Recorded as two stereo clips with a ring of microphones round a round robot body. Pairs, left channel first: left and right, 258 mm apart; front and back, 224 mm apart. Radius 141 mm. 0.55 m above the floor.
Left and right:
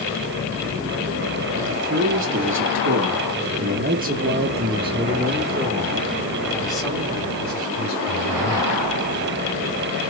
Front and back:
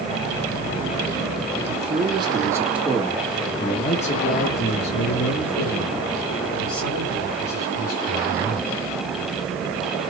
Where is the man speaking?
125° right, 2 m; by 8.7 s 5° left, 4.5 m.